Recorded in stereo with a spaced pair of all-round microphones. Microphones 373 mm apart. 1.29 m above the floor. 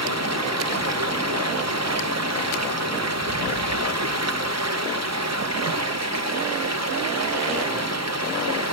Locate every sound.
0.0 s running water: 40° right (ahead or behind), 1.0 m